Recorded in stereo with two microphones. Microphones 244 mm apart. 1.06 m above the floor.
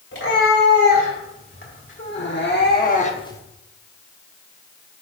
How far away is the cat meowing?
About 3 m.